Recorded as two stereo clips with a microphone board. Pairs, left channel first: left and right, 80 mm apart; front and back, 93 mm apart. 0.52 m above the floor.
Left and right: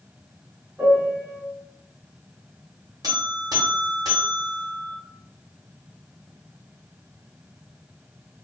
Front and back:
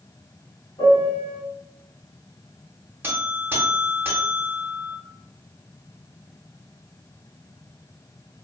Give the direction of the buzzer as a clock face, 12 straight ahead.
4 o'clock.